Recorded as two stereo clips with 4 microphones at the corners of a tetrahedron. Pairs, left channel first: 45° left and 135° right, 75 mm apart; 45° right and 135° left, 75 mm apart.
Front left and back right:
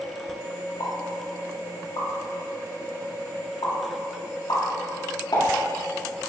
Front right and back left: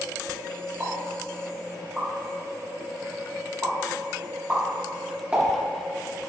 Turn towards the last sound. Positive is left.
turn(degrees=65)